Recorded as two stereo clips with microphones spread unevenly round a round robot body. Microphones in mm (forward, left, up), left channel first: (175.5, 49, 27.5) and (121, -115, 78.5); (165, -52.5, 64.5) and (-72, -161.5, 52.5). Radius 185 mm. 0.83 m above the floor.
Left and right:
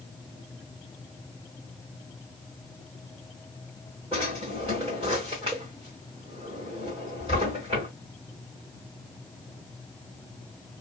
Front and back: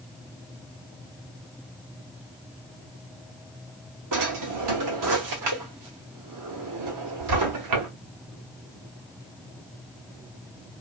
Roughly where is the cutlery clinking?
I don't hear cutlery clinking.